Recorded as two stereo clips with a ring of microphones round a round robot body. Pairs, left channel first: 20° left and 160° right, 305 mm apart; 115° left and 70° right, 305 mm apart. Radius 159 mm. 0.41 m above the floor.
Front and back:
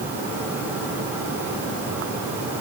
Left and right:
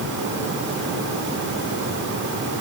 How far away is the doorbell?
I don't hear a doorbell.